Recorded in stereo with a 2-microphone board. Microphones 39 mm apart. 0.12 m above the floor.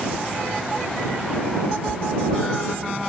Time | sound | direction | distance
1.6 | a cat meowing | 60° left (ahead or behind) | ?